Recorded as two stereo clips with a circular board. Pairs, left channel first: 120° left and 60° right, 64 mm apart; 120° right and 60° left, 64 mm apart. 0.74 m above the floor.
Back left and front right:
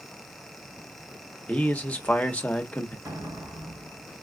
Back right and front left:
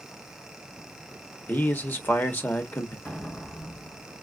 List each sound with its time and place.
1.5 s a man speaking: 175° right, 0.9 m
3.0 s an explosion: 60° right, 3.5 m